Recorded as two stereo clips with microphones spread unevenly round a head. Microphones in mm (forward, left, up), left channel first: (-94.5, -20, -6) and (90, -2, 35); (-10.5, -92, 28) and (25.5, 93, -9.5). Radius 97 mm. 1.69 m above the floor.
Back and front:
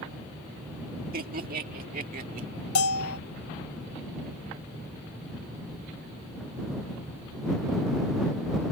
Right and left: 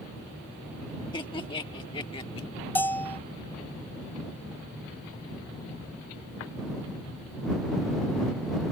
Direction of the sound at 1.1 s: 35° right.